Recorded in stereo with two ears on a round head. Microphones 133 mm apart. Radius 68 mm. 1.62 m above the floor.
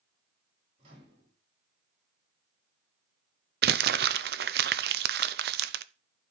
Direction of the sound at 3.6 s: 70° right (ahead or behind).